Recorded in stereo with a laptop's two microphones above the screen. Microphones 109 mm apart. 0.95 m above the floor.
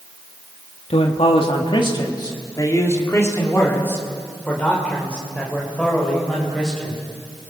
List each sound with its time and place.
0.9 s a man speaking: 65° left (ahead or behind), 1.8 m; by 7.0 s 5° left (ahead or behind), 5.5 m